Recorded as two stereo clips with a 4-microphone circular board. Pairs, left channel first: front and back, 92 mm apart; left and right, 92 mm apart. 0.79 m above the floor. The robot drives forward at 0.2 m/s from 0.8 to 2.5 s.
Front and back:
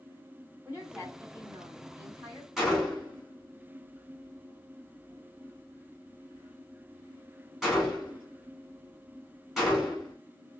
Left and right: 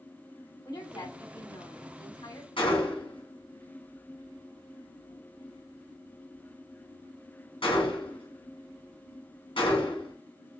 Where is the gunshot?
95° left, 1.3 m.